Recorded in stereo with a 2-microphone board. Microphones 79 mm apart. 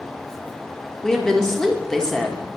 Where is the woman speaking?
5° left (ahead or behind), 1.2 m.